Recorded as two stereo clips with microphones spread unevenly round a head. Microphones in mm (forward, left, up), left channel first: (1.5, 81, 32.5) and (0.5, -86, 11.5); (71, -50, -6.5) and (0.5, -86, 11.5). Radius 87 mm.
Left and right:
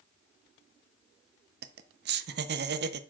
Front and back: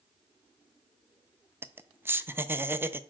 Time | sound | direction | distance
1.6 | laughter | 85° right | 0.8 m